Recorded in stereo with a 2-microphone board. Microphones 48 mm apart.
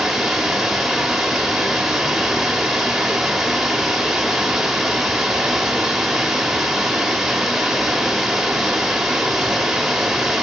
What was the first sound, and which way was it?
Running water, 5° right (ahead or behind).